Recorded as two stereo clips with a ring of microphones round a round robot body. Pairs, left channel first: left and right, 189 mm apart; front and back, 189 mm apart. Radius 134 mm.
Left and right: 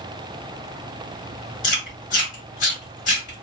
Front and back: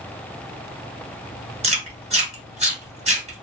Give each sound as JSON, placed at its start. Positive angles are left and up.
{"t": 1.6, "sound": "chewing", "azimuth_deg": 135, "distance_m": 1.5}